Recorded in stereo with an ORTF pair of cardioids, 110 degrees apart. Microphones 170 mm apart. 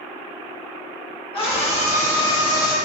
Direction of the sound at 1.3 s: 35° left.